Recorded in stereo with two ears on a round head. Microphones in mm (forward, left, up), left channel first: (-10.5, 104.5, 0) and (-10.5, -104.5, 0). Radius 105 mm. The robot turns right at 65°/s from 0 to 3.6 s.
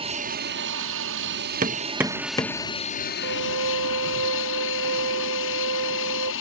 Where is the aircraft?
155° right; by 6.4 s 80° left.